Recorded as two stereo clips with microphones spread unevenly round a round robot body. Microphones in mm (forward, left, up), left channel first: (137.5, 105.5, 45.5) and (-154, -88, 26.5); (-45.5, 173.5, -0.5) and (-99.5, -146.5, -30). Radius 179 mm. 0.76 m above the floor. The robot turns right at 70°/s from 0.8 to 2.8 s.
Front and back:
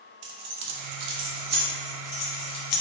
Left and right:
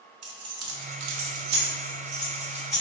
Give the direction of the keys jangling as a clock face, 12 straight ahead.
5 o'clock.